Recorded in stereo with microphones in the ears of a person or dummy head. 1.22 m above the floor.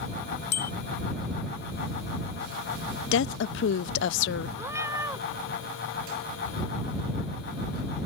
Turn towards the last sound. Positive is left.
turn(degrees=-15)  # may be behind; listen again after turning